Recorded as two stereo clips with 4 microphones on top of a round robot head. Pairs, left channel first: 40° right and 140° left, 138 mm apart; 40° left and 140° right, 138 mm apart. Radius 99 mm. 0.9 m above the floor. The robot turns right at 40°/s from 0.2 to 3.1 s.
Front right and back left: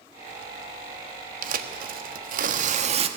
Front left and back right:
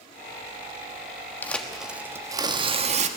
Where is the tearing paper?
120° left, 1.4 m; by 3.1 s 175° right, 1.4 m.